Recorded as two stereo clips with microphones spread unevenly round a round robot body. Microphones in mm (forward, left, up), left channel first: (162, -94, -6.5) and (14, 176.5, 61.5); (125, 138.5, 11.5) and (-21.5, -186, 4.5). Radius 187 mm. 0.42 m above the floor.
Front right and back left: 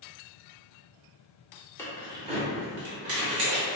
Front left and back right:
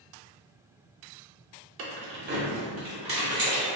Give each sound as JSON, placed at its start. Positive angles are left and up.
{"t": 1.8, "sound": "keys jangling", "azimuth_deg": -115, "distance_m": 0.7}